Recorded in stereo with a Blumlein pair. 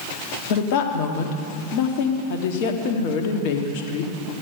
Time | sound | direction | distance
0.5 | a woman speaking | 45° left | 1.6 m